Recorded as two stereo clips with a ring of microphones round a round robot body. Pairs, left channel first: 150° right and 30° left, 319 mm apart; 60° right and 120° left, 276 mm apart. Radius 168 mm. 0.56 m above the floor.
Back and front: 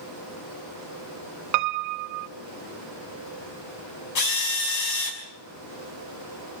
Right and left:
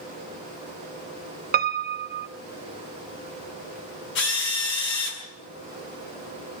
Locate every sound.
1.5 s a piano: 65° left, 0.5 m
4.2 s a drill: 115° right, 5 m